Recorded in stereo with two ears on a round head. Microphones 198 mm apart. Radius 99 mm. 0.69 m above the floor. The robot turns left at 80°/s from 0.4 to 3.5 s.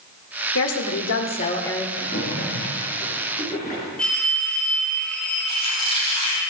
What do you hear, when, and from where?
0.6 s a woman speaking: 105° left, 1.6 m; by 1.9 s straight ahead, 1.6 m
2.0 s a splash: 160° left, 4 m; by 3.9 s 35° left, 4 m
4.0 s a phone ringing: 5° left (ahead or behind), 1.9 m
5.5 s a squeak: 30° left (ahead or behind), 4.5 m